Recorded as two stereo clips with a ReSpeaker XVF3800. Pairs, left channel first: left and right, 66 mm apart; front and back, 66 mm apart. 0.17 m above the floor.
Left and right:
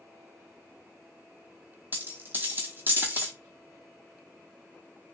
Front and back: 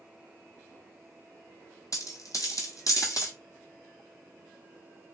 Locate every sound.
1.9 s a dropped coin: 30° right, 1.0 m